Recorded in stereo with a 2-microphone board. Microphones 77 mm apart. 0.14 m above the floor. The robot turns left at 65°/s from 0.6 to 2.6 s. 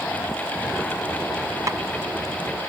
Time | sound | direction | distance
1.7 | tapping | 40° right (ahead or behind) | ?